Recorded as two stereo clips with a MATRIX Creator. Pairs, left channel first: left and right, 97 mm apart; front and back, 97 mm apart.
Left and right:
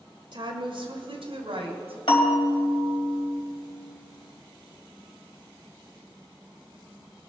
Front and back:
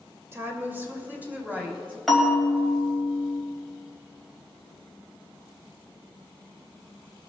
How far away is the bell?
About 2.5 m.